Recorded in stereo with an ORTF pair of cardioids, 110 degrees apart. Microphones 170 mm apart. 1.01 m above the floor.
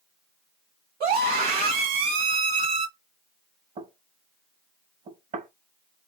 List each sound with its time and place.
1.0 s a scream: 65° right, 2.5 m
3.8 s knocking: 45° right, 1.2 m